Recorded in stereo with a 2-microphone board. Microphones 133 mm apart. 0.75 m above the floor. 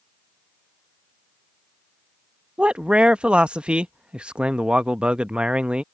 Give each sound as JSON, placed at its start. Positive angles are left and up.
{"t": 2.6, "sound": "a man speaking", "side_deg": -5}